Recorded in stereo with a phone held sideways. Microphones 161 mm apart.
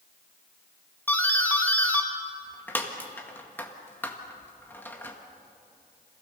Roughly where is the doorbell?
Centre.